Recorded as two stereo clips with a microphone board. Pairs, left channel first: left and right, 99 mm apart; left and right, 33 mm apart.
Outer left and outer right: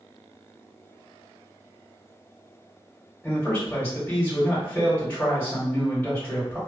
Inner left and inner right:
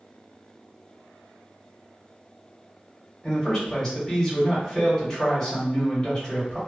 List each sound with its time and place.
3.2 s a man speaking: 15° left (ahead or behind), 1.6 m